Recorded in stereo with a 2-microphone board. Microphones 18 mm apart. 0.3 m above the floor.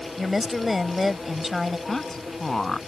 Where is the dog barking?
No dog barking in this recording.